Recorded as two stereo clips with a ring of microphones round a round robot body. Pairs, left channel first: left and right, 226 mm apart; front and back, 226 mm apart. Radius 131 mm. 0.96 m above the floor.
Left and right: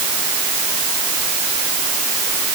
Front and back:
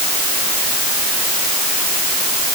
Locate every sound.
Only background noise.